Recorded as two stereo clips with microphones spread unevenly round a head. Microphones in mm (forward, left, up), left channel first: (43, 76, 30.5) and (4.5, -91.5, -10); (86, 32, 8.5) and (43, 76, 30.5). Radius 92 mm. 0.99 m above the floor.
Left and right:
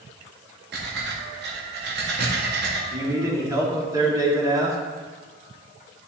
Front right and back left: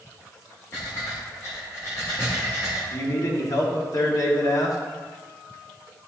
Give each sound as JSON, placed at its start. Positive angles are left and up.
{"t": 0.7, "sound": "breathing", "azimuth_deg": -100, "distance_m": 1.7}
{"t": 2.9, "sound": "a man speaking", "azimuth_deg": -35, "distance_m": 2.0}